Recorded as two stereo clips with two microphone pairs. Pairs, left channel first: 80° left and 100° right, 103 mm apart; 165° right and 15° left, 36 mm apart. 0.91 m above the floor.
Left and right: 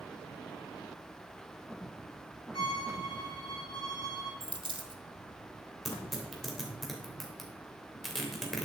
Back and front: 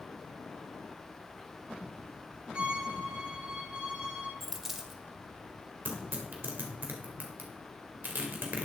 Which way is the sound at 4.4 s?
65° right.